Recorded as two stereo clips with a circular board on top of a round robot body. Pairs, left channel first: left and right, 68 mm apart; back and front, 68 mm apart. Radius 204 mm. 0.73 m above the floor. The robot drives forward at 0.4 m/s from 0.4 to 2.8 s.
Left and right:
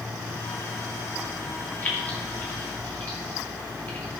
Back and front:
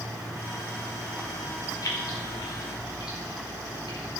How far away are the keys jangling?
About 2.5 m.